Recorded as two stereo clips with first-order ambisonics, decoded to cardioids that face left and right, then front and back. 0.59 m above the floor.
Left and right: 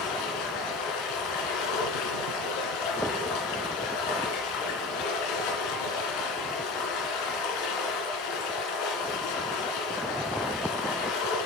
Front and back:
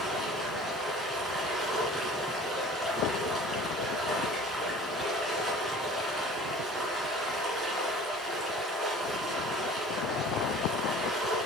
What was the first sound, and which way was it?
Running water, 100° left.